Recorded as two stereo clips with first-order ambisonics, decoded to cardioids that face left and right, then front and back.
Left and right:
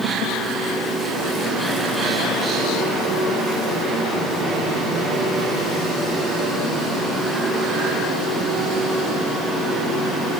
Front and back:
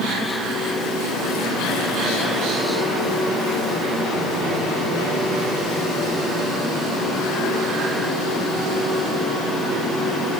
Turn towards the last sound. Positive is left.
No sound to turn to.